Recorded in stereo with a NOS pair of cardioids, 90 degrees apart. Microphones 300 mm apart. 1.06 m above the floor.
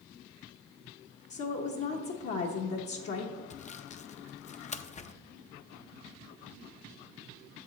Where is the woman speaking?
50° left, 0.9 m.